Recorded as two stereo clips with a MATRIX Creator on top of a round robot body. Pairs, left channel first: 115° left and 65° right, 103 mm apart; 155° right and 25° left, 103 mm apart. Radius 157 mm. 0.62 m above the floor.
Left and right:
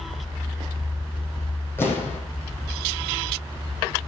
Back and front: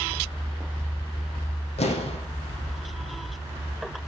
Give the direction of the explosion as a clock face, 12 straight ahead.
6 o'clock.